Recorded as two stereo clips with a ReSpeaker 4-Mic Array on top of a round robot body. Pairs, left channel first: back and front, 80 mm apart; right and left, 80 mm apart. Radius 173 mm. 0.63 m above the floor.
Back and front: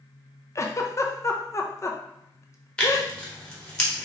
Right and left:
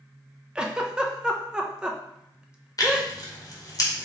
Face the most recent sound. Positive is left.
turn(degrees=-105)